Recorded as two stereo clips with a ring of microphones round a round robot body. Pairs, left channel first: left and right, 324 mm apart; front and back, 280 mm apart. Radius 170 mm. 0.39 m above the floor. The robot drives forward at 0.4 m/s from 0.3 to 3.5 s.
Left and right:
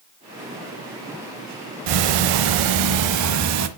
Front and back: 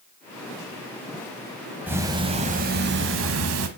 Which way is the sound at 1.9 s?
95° right.